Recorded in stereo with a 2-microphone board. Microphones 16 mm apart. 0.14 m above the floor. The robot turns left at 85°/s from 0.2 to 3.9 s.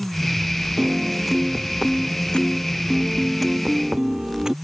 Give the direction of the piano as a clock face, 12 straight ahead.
4 o'clock.